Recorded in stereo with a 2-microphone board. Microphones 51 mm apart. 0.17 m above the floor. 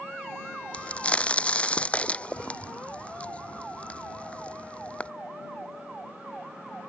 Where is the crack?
25° left (ahead or behind).